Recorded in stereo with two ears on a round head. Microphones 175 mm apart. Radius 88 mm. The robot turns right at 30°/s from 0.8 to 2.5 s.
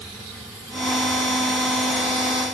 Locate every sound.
Only background noise.